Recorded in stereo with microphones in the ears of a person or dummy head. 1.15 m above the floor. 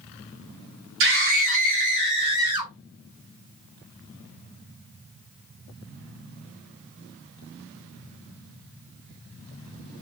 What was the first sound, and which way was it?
A scream, 55° right (ahead or behind).